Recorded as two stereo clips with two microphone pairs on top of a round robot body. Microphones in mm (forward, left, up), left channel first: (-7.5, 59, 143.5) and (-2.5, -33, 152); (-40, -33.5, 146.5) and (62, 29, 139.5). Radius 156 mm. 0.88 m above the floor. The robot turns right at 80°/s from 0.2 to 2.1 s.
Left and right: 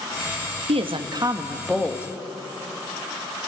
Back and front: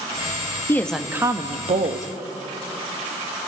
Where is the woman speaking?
80° right, 1.4 m; by 2.1 s 35° left, 1.4 m.